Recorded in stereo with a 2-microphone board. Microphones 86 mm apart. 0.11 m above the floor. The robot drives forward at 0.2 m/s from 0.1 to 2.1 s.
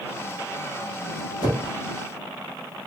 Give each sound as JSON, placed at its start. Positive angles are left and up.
{"t": 1.4, "sound": "a whoosh", "side_deg": 45, "distance_m": 1.2}